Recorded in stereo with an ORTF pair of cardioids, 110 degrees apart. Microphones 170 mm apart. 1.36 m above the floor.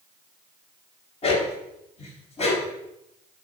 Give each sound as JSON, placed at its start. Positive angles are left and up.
{"t": 1.2, "sound": "a dog barking", "azimuth_deg": 40, "distance_m": 3.0}